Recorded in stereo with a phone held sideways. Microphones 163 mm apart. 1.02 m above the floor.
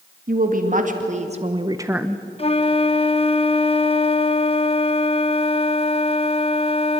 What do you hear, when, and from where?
0.3 s a woman speaking: 60° right (ahead or behind), 2.5 m; by 2.2 s 10° left (ahead or behind), 0.8 m
2.4 s a flute: 35° left (ahead or behind), 0.7 m